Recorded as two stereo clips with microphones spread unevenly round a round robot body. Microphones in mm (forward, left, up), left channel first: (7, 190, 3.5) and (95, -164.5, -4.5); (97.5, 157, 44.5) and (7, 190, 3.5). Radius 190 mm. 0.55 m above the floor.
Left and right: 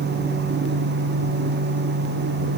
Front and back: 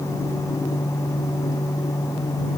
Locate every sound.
Only background noise.